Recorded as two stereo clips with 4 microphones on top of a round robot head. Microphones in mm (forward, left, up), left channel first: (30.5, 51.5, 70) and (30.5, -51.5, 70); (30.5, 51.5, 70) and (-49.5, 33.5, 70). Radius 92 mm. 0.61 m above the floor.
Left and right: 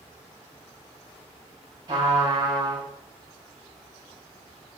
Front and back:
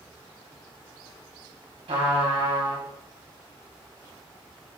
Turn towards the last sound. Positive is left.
turn(degrees=-150)